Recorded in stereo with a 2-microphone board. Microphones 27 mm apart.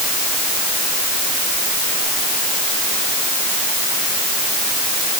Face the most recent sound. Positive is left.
No sound to turn to.